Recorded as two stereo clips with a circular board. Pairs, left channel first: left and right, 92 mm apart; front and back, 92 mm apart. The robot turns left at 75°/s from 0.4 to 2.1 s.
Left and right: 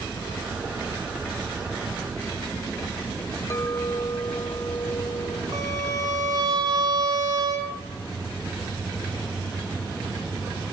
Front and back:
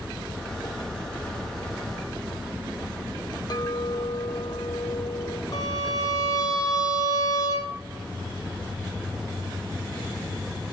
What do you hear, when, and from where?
3.5 s a clink: 35° left, 0.6 m
5.5 s a violin: 45° right, 2.5 m